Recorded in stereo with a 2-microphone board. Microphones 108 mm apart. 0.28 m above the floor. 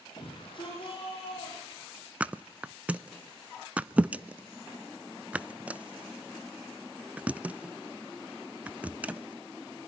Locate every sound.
0.2 s a shout: 50° left (ahead or behind), 8.5 m; by 2.1 s 55° left (ahead or behind), 11 m
2.2 s a thud: 15° right (ahead or behind), 0.6 m